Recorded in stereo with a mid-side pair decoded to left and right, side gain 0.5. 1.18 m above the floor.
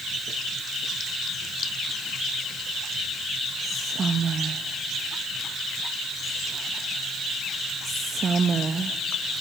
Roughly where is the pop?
No pop in this recording.